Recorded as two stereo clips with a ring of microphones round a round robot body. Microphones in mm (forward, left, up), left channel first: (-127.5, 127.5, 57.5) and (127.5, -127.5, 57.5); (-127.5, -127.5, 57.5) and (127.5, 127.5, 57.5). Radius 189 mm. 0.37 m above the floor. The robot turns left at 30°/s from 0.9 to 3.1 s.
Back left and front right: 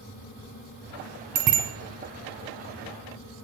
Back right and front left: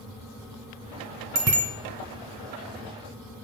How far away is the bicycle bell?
About 2 m.